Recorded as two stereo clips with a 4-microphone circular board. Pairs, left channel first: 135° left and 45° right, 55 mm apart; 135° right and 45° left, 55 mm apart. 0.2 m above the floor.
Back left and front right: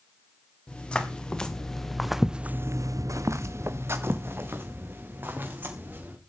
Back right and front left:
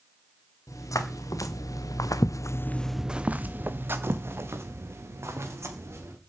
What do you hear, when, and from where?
0.7 s footsteps: 155° right, 3 m; by 6.2 s 10° left, 5 m